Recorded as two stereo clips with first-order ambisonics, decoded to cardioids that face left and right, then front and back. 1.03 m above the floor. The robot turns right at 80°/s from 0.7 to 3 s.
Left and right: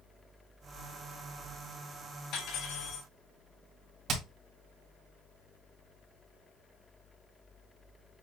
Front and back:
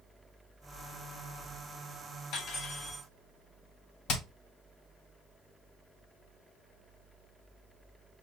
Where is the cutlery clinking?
35° left, 3.5 m; by 3.1 s 90° left, 3.5 m.